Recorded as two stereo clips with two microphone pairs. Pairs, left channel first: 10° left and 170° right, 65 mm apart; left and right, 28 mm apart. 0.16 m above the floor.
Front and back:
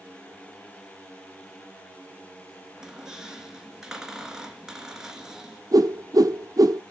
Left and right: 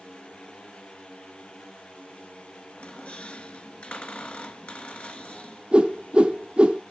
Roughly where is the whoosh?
Behind right.